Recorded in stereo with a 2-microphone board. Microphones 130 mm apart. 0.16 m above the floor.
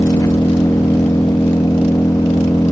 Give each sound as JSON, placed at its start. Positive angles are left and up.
{"t": 0.0, "sound": "an engine running", "side_deg": 25}